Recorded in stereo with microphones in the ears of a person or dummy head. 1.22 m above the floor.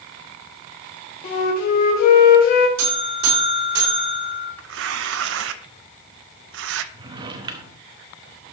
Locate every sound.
1.2 s a flute: 45° left (ahead or behind), 1.5 m
2.8 s a buzzer: 70° right (ahead or behind), 5 m
4.6 s tearing paper: 80° right, 0.6 m
6.9 s a drawer: 30° right (ahead or behind), 0.9 m